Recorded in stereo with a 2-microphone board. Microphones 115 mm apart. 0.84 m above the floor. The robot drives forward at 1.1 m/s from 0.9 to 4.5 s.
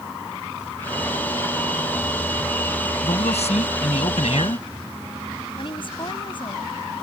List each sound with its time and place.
3.0 s a man speaking: 80° left; by 4.6 s 65° left (ahead or behind)
5.6 s a woman speaking: 50° left (ahead or behind)